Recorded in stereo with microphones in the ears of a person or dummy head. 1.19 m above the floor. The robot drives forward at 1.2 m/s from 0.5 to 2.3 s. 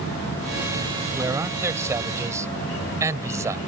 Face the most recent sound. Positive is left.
turn(degrees=-15)  # may be behind; listen again after turning